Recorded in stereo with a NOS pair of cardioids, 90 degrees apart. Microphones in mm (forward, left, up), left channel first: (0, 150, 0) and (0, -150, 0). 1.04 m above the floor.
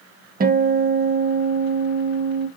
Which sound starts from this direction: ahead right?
A guitar, at 0.4 s.